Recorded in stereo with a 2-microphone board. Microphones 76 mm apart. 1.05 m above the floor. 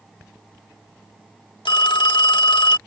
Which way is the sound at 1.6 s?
80° left.